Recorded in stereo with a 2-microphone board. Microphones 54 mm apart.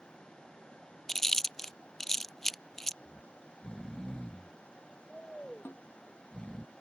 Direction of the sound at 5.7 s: 40° left (ahead or behind).